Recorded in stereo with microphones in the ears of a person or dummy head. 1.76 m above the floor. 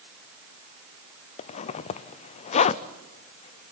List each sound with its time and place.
1.4 s a zipper: 45° left (ahead or behind), 0.6 m